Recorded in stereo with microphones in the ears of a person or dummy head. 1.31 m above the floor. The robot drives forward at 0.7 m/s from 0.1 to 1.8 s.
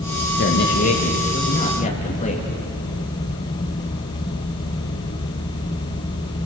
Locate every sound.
0.4 s a man speaking: 50° left (ahead or behind), 1.9 m; by 2.5 s 35° left (ahead or behind), 2.5 m